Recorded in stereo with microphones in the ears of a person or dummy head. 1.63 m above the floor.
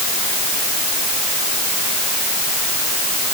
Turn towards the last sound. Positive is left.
No sound to turn to.